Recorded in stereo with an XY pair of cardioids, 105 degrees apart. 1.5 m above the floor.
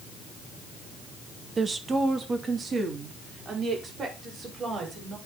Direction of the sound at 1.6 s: 30° right.